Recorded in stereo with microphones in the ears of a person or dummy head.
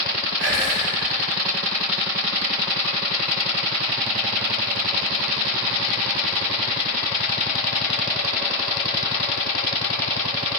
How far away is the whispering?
About 4 m.